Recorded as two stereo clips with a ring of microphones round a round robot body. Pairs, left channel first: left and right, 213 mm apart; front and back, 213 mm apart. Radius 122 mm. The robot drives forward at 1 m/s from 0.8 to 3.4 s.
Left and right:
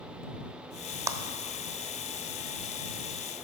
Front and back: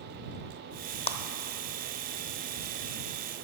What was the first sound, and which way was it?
A clap, 30° right.